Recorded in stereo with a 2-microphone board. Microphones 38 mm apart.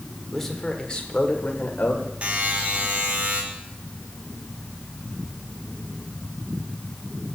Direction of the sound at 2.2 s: 40° right (ahead or behind).